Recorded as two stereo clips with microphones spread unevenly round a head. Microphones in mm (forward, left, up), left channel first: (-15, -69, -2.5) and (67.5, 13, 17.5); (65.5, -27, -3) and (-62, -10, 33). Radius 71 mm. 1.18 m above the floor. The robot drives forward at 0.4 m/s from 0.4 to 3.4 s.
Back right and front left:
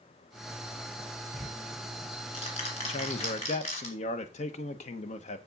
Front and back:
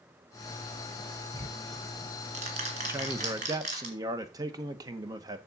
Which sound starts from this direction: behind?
Ticking, at 1.3 s.